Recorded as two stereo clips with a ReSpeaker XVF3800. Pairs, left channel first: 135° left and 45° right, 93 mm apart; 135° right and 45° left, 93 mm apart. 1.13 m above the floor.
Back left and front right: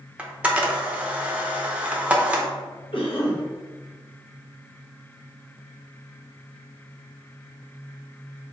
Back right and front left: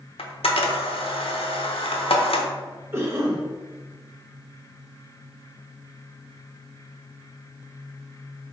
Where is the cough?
110° left, 1.0 m.